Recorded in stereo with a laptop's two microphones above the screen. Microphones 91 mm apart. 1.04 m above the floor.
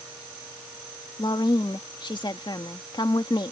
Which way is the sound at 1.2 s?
55° left (ahead or behind).